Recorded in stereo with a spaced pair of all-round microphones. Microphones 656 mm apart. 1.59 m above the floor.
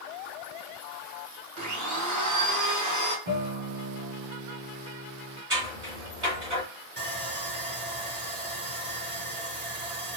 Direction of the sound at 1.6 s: 25° right (ahead or behind).